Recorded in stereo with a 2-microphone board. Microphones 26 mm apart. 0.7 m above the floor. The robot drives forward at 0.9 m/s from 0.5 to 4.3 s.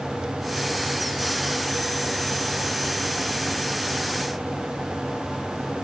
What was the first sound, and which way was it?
Only background noise.